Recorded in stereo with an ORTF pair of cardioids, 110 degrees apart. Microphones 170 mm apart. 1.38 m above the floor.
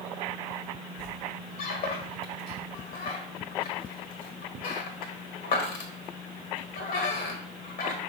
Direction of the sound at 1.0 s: 60° left.